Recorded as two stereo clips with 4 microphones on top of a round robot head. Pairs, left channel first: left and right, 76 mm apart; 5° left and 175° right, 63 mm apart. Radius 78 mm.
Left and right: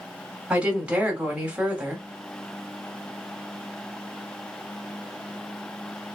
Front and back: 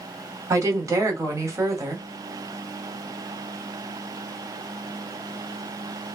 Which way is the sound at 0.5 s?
160° right.